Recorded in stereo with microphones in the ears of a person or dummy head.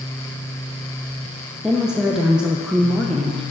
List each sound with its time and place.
1.6 s a woman speaking: centre (ahead or behind), 0.6 m